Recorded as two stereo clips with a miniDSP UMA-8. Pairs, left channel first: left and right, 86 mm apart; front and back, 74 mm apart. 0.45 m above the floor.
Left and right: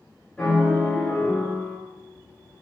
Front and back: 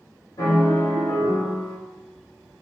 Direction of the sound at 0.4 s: 10° left.